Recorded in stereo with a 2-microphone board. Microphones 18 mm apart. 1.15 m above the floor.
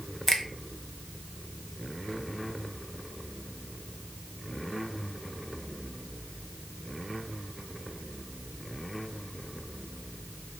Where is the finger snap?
15° left (ahead or behind), 0.6 m.